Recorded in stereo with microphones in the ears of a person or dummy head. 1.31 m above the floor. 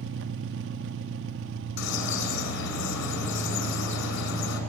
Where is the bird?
60° left (ahead or behind), 6.5 m.